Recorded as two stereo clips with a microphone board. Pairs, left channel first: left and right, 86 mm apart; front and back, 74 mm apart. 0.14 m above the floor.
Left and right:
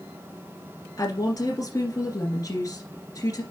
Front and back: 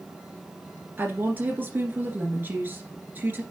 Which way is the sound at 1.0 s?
125° left.